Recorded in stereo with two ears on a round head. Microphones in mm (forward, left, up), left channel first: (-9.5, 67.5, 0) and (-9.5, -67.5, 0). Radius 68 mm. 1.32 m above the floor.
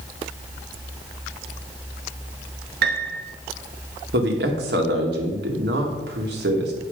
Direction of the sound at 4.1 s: 85° right.